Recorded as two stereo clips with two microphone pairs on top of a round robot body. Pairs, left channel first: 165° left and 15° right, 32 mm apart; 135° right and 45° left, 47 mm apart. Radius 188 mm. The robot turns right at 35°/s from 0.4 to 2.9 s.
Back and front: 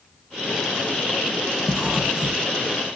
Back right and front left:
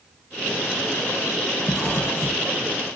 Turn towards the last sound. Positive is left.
turn(degrees=-55)